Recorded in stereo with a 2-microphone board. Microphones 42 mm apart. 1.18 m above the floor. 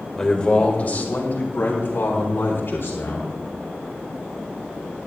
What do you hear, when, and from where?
0.2 s a man speaking: 10° left (ahead or behind), 1.4 m; by 3.3 s 70° left (ahead or behind), 4.5 m